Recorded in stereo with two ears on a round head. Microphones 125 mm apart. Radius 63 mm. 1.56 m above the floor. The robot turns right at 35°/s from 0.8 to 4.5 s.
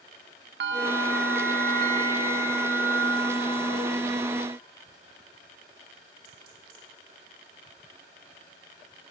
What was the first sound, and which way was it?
A bell, 95° right.